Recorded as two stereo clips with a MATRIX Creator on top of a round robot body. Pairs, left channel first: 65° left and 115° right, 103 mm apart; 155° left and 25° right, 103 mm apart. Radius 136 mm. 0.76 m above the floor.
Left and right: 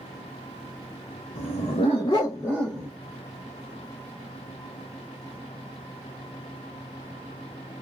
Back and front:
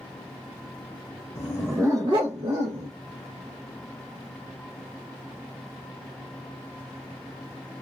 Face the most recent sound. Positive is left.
turn(degrees=-25)